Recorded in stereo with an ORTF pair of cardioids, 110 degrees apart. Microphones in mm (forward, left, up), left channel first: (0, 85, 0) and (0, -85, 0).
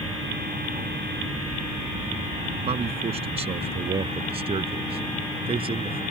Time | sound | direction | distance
2.7 | a man speaking | 35° right | ?